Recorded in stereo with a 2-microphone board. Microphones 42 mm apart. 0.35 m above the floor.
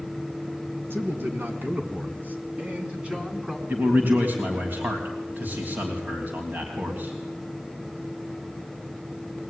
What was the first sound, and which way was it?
A man speaking, 65° right (ahead or behind).